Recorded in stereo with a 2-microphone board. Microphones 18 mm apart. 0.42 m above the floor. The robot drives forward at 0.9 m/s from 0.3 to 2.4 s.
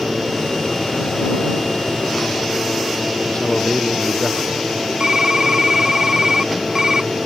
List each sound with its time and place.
3.3 s a man speaking: 65° left (ahead or behind)
5.0 s typing on a keyboard: 45° right (ahead or behind)